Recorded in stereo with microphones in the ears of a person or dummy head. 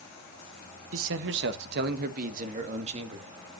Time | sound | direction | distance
0.9 | a man speaking | 80° right | 1.3 m